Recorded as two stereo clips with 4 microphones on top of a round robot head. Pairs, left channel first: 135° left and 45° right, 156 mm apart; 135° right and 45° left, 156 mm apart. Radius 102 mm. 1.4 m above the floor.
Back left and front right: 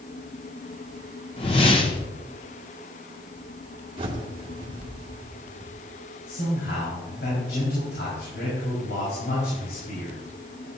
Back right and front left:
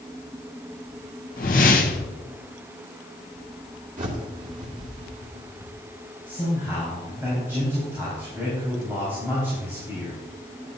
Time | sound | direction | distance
1.4 | a whoosh | 170° right | 0.7 m
4.0 | a bird | 10° left | 2 m
6.3 | a man speaking | 120° left | 4.5 m